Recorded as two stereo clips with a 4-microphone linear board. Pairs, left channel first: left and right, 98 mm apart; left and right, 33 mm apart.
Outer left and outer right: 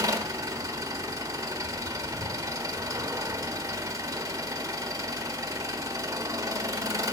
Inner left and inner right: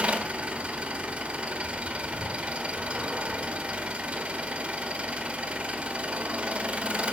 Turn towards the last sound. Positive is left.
turn(degrees=-35)  # may be behind; listen again after turning